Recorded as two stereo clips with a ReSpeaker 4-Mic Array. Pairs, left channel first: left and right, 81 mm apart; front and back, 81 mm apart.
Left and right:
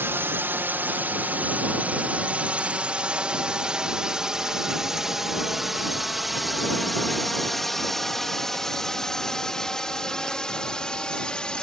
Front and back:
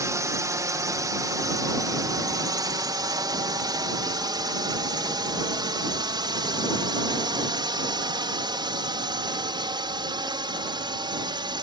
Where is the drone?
145° right; by 11.6 s 170° left.